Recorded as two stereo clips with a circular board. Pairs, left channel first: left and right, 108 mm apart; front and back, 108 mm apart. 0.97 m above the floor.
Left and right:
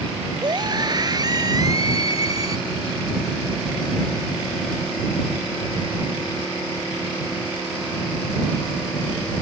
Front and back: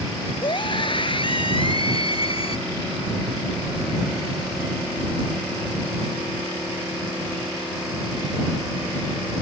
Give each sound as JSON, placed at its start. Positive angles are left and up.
{"t": 0.4, "sound": "a scream", "azimuth_deg": -40}